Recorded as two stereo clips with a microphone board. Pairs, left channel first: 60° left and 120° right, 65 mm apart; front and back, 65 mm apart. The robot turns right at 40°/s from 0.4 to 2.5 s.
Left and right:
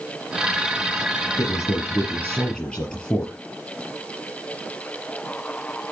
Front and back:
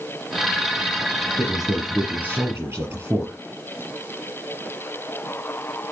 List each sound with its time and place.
1.4 s a man speaking: 85° left, 4.5 m; by 3.3 s 130° left, 4.5 m